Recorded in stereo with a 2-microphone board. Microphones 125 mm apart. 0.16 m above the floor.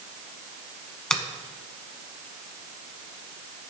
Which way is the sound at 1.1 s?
5° left (ahead or behind).